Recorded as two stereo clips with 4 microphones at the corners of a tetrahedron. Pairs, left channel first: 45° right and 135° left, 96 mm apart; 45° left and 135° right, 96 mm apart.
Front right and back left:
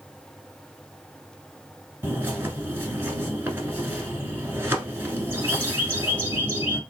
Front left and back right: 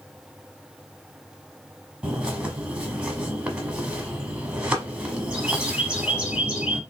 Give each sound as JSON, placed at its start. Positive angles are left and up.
{"t": 2.0, "sound": "a bird", "azimuth_deg": 160, "distance_m": 1.0}